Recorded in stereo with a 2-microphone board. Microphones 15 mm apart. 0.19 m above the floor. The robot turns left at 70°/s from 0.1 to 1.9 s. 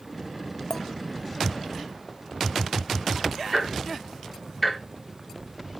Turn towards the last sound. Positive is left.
turn(degrees=0)  # may be behind; listen again after turning